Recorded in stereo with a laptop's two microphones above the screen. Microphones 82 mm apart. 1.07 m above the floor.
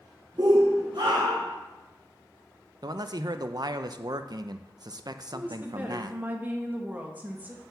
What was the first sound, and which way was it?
A shout, 50° right (ahead or behind).